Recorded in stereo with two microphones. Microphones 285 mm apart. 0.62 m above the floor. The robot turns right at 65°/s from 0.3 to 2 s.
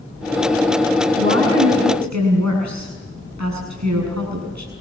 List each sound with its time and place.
1.2 s a woman speaking: 140° right, 7 m; by 4.7 s 85° right, 7 m